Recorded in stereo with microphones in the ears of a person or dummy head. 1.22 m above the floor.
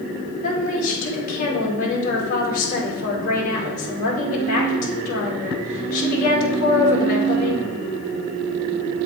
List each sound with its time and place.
0.4 s a woman speaking: 45° left (ahead or behind), 2 m